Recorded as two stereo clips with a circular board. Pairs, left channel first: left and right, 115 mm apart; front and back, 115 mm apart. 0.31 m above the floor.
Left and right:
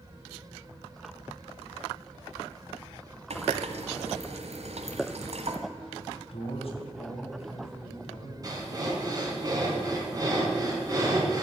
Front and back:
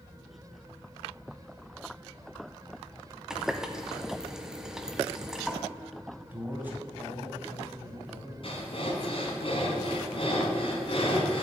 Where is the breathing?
35° right, 2.5 m.